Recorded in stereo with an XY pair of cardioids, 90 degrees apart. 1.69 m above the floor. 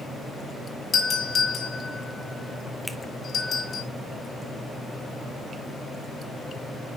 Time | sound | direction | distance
0.9 | a doorbell | 60° left | 4.5 m
2.9 | a finger snap | straight ahead | 0.9 m